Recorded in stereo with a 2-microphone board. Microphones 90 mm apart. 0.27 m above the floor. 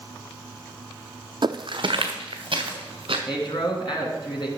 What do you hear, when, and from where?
1.4 s footsteps: 55° right (ahead or behind), 0.5 m; by 3.2 s 65° right (ahead or behind), 2.5 m
3.3 s a man speaking: 60° left (ahead or behind), 2.5 m